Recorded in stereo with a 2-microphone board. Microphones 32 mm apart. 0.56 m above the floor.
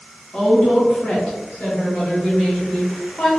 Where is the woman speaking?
30° left (ahead or behind), 0.8 m; by 3.3 s 35° left (ahead or behind), 1.6 m.